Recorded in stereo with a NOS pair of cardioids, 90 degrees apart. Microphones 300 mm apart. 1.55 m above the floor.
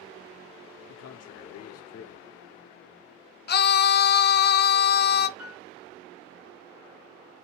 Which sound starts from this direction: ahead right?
A piano, at 5.4 s.